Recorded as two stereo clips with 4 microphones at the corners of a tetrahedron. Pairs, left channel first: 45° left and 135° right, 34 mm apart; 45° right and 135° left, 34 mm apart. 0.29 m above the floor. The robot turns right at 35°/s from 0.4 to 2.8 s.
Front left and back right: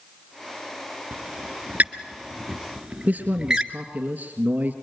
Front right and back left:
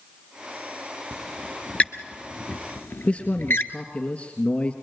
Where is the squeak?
120° right, 1.5 m; by 3.7 s 60° right, 1.5 m.